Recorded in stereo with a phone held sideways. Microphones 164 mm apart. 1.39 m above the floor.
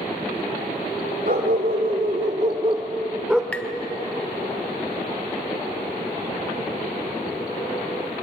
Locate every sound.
1.2 s a dog barking: 65° right (ahead or behind), 2.5 m; by 3.4 s centre (ahead or behind), 1.5 m
3.5 s tapping: 10° left (ahead or behind), 0.8 m